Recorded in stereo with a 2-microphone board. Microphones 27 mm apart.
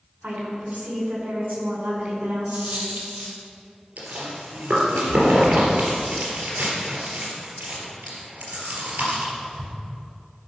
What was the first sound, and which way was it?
A woman speaking, 65° right (ahead or behind).